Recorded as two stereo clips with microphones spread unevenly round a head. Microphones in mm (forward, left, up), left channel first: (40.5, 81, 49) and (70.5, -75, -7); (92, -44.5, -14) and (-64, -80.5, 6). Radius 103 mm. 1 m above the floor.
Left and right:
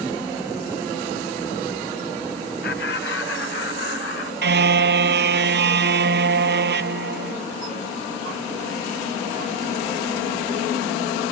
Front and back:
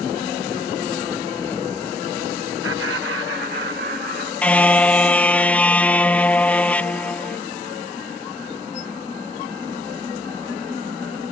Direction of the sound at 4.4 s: 70° right.